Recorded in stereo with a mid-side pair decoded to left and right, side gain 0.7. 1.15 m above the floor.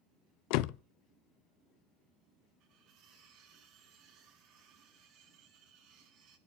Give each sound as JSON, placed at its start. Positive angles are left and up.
{"t": 0.5, "sound": "a door slam", "azimuth_deg": 70, "distance_m": 0.6}
{"t": 2.6, "sound": "cutlery clinking", "azimuth_deg": -65, "distance_m": 6.5}